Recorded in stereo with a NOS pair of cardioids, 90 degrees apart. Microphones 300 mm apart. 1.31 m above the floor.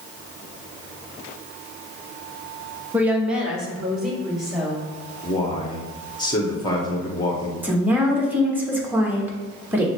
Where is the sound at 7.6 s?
5° right, 1.3 m.